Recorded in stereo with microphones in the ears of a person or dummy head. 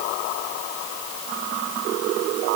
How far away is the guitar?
I don't hear a guitar.